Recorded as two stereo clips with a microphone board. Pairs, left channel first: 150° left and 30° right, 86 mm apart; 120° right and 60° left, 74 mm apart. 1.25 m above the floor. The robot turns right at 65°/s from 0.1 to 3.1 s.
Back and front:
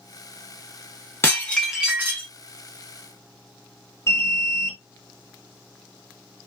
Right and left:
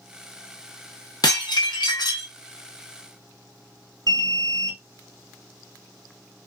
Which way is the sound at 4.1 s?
95° left.